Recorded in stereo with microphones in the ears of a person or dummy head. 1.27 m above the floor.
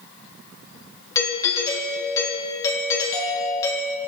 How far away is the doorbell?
About 3 m.